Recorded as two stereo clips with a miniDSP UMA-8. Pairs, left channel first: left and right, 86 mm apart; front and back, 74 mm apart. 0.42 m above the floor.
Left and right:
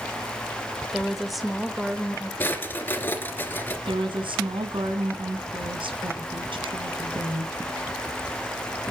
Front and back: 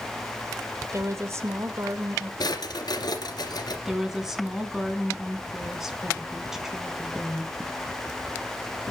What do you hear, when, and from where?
0.9 s a woman speaking: 175° right, 1.6 m
2.4 s a drawer: 25° left, 2.5 m
3.9 s a woman speaking: 95° right, 3 m